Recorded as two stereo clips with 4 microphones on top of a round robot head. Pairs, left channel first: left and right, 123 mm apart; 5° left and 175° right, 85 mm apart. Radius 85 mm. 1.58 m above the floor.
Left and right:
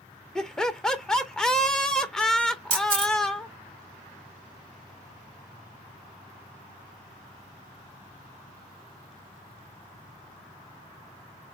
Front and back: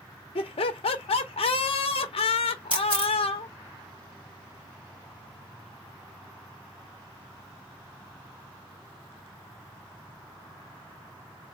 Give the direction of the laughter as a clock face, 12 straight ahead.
12 o'clock.